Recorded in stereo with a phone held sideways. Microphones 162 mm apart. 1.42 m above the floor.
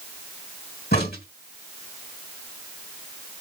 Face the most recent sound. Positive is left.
turn(degrees=85)